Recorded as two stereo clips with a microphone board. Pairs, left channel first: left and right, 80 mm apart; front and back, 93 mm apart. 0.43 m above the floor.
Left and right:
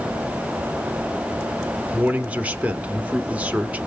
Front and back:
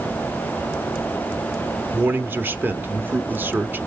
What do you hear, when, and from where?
1.9 s a man speaking: 140° right, 1.0 m